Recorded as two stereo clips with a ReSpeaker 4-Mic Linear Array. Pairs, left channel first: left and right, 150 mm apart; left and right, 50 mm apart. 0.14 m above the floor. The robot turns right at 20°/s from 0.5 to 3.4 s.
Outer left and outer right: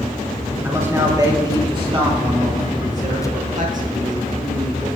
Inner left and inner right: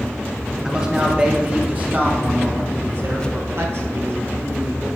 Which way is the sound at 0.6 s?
165° right.